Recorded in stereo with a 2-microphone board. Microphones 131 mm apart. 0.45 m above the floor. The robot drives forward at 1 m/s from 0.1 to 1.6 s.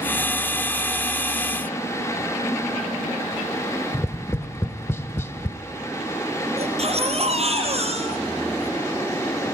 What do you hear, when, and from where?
3.9 s tapping: 20° left (ahead or behind), 0.8 m
6.6 s a baby crying: 55° right (ahead or behind), 3.5 m